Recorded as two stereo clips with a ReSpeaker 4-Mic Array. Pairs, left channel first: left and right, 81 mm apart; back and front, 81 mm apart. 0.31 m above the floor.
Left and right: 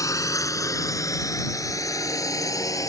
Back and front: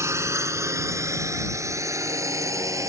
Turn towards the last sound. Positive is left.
turn(degrees=45)